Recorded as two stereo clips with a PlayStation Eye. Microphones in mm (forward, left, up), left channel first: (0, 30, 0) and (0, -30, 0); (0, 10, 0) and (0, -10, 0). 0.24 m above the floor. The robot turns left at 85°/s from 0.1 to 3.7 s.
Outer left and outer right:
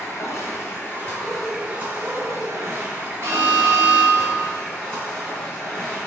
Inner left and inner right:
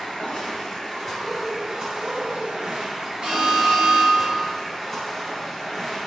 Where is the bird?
45° left, 1.1 m; by 2.7 s 80° right, 1.1 m.